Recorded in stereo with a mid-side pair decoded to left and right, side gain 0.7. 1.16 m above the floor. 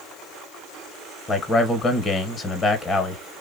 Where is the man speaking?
25° left, 0.8 m.